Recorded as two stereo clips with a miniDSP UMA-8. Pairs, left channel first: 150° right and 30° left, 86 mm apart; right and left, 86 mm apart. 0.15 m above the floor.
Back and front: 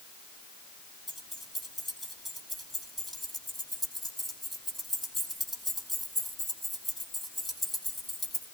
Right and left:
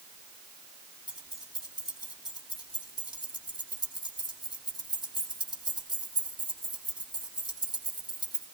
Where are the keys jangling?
60° right, 5 m.